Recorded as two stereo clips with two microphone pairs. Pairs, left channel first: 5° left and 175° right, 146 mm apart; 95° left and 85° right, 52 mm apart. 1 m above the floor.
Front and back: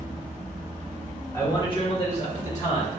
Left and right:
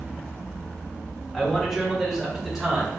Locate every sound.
1.3 s a man speaking: 20° left, 0.9 m; by 3.0 s 5° right, 1.8 m